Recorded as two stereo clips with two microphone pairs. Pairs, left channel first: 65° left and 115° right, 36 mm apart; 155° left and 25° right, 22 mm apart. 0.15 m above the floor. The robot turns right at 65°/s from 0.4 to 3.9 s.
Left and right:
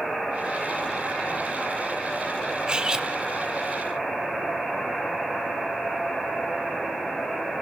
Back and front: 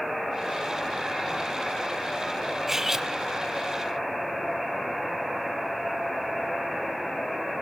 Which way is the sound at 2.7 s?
85° right.